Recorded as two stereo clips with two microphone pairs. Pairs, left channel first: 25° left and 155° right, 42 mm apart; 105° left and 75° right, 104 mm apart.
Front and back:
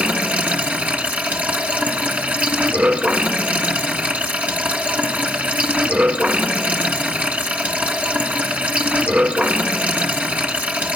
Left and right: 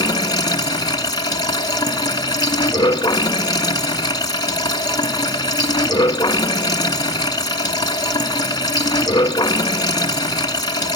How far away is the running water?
About 1.8 m.